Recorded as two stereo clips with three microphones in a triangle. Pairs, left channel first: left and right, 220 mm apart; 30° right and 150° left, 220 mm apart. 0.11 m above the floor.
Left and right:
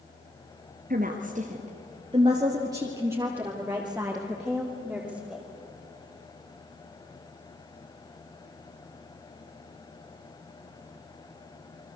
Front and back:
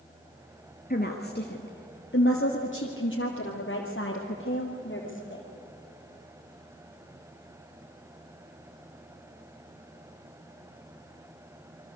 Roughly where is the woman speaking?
Ahead right.